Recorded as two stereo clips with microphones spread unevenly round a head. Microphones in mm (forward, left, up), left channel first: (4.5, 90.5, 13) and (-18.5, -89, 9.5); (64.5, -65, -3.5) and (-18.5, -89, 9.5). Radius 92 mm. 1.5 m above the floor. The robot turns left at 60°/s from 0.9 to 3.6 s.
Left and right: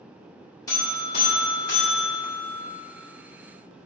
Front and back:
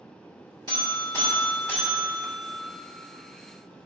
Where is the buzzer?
155° left, 2 m; by 2.6 s 50° left, 2 m.